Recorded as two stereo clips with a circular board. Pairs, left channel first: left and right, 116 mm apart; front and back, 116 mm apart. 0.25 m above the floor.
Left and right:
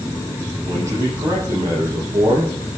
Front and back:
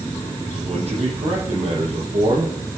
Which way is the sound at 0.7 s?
155° right.